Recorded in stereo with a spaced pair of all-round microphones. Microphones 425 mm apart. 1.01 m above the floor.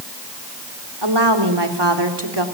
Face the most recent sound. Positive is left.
turn(degrees=-70)  # may be behind; listen again after turning